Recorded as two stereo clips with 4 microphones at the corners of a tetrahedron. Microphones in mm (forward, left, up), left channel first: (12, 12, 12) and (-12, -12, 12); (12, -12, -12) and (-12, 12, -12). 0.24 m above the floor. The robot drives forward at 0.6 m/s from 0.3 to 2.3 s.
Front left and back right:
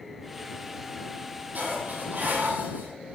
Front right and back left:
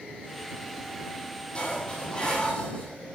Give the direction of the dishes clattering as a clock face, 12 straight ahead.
3 o'clock.